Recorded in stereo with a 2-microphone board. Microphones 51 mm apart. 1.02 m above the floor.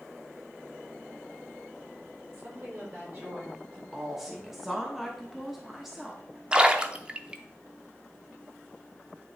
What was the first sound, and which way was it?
A woman speaking, 40° right (ahead or behind).